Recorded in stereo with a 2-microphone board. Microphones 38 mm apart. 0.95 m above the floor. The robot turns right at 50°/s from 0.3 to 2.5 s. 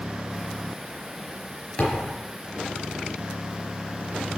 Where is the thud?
30° left (ahead or behind), 4 m; by 2.2 s 10° left (ahead or behind), 4 m.